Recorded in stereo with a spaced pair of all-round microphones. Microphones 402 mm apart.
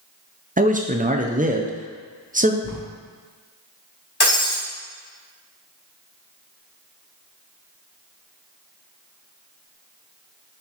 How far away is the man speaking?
About 0.5 m.